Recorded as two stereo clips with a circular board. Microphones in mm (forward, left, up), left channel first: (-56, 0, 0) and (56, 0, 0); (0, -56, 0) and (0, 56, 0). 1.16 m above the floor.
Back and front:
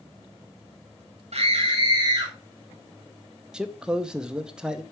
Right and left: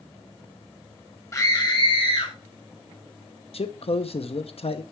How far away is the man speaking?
About 0.8 m.